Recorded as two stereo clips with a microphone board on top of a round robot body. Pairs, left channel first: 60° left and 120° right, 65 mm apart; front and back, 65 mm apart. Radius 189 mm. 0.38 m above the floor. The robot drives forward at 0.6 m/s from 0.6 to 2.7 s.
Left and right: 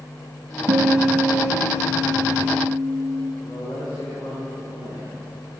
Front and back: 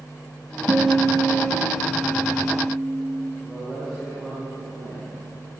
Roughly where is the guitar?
Behind right.